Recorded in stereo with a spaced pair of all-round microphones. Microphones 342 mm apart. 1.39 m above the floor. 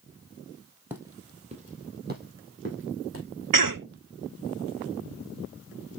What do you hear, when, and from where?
0.9 s footsteps: 5° right (ahead or behind), 1.5 m; by 3.2 s 40° right (ahead or behind), 2.5 m
3.5 s a cough: 70° right (ahead or behind), 0.6 m